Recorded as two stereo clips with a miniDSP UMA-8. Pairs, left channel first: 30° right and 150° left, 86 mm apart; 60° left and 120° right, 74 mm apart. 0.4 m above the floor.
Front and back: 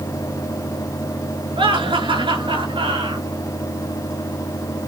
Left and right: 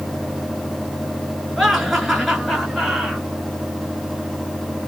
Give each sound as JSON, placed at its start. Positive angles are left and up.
{"t": 1.6, "sound": "laughter", "azimuth_deg": 150, "distance_m": 5.0}